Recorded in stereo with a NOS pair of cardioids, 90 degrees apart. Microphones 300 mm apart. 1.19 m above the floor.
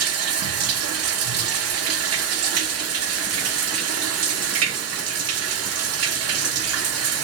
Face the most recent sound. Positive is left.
turn(degrees=-55)